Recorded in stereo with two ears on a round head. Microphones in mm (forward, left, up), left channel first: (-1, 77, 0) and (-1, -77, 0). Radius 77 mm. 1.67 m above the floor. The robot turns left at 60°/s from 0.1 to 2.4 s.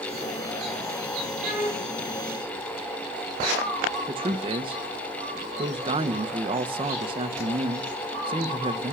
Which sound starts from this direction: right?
A man speaking, at 4.1 s.